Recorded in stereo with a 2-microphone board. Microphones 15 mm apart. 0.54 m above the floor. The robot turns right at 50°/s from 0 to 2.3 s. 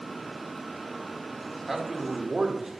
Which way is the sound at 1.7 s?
175° right.